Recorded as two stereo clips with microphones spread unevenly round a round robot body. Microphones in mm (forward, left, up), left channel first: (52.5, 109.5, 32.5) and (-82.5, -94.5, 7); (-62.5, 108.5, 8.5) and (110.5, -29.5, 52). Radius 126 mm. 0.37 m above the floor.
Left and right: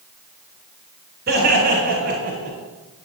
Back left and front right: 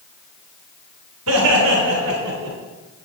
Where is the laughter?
70° right, 3.5 m; by 2.6 s 65° right, 2.5 m.